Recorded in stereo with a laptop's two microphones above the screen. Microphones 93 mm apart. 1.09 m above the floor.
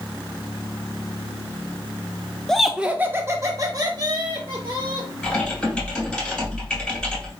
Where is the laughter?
5° left (ahead or behind), 0.6 m; by 5.1 s 55° right (ahead or behind), 1.8 m.